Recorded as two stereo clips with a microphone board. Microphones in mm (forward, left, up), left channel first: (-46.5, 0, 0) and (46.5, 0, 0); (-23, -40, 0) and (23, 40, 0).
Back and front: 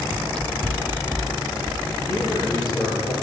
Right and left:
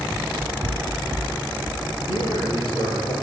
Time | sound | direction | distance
0.1 | running footsteps | 110° left | 0.8 m
2.1 | a man speaking | 135° right | 9.5 m